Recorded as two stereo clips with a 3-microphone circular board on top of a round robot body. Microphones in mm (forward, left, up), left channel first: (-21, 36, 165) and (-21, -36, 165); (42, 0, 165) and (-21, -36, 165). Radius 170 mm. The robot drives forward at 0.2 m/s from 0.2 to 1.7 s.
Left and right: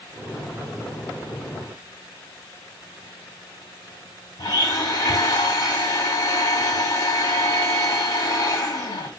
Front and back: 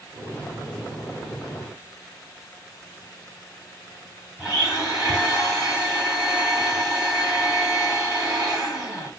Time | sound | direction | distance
4.4 | a blender | 130° left | 2.5 m